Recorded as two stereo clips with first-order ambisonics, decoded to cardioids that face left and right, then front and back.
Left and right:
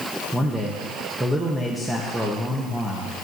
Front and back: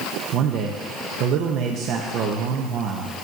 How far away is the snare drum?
I don't hear a snare drum.